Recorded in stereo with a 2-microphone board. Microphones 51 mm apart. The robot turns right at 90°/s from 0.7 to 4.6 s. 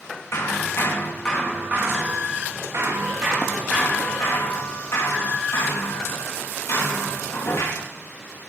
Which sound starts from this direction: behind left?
Hammering, at 0.3 s.